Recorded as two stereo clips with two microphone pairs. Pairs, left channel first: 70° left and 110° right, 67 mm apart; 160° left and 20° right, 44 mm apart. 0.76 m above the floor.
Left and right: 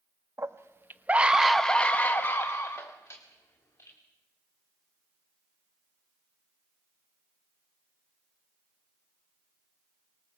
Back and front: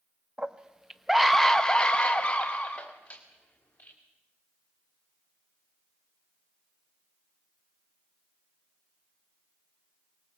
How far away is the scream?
About 1.2 m.